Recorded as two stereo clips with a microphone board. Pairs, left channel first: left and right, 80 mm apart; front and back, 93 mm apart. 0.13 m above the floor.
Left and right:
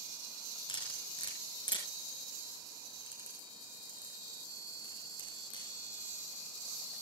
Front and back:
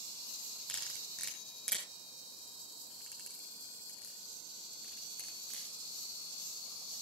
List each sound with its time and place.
0.7 s cutlery clinking: 85° left, 5.5 m